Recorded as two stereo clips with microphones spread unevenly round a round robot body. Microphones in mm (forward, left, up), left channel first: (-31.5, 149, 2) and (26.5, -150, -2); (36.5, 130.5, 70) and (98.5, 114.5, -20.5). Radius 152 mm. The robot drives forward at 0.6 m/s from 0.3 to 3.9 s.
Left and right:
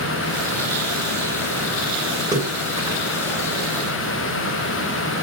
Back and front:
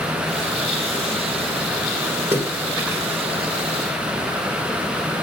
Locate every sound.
2.3 s a splash: straight ahead, 4 m